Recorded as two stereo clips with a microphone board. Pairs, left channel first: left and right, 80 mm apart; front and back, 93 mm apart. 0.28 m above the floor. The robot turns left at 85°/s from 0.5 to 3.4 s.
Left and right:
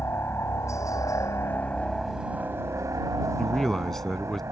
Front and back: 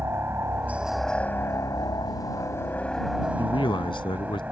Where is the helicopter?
130° left; by 4.5 s 115° right.